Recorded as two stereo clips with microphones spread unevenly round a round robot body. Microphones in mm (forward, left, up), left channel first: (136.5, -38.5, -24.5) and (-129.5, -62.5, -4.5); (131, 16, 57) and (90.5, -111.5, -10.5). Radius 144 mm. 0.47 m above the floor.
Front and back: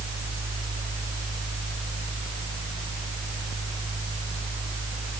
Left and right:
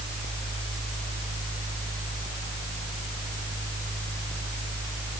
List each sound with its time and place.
Only background noise.